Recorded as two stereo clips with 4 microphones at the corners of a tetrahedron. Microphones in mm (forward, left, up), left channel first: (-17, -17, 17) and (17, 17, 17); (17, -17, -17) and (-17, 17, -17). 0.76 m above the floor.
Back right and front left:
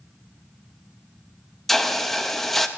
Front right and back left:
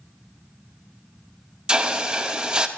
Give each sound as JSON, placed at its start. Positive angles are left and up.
{"t": 1.7, "sound": "a hiss", "azimuth_deg": 150, "distance_m": 0.8}